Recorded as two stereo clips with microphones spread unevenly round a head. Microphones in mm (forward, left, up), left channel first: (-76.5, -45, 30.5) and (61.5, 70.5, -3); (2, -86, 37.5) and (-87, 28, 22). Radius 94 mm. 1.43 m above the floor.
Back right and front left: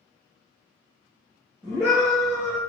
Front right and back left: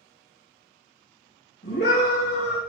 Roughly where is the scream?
Ahead right.